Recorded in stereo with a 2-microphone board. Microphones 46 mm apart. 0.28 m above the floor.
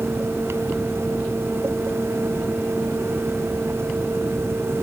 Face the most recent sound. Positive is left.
No sound to turn to.